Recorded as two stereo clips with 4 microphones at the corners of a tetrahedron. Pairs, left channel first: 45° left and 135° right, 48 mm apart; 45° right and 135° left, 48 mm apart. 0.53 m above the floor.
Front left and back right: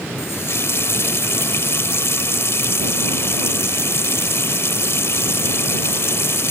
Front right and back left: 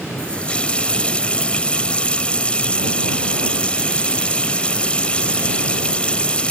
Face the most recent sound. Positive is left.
turn(degrees=20)